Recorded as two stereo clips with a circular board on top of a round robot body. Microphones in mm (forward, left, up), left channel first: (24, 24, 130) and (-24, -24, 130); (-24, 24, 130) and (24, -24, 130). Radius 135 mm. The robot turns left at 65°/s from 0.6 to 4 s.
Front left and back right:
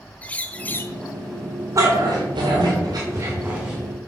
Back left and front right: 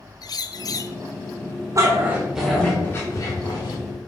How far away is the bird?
About 0.6 m.